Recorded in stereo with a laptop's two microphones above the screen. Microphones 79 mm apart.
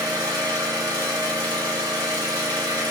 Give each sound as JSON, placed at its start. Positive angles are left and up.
{"t": 0.0, "sound": "an engine running", "side_deg": -60, "distance_m": 1.9}